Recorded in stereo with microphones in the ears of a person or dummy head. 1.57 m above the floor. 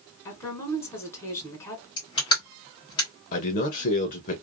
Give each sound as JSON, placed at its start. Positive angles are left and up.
{"t": 0.2, "sound": "a woman speaking", "side_deg": 15, "distance_m": 1.7}
{"t": 2.0, "sound": "crushing", "side_deg": 30, "distance_m": 1.5}
{"t": 3.3, "sound": "a man speaking", "side_deg": 45, "distance_m": 0.7}